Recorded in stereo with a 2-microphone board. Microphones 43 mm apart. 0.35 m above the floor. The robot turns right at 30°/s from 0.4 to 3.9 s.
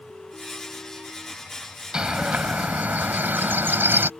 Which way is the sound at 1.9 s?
155° right.